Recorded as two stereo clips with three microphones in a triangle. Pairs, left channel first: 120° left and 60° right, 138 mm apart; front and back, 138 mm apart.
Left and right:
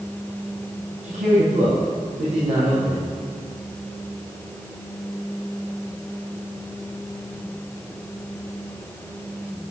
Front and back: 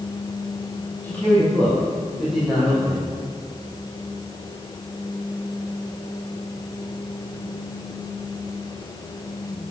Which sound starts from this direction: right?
A man speaking, at 1.0 s.